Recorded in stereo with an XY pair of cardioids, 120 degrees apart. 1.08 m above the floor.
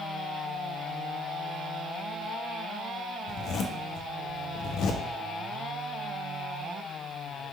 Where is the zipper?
65° left, 0.7 m.